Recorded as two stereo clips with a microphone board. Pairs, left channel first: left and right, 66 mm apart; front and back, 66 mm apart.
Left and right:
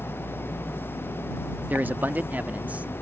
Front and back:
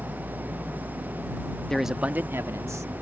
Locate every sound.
1.7 s a man speaking: 65° right; by 2.9 s 155° right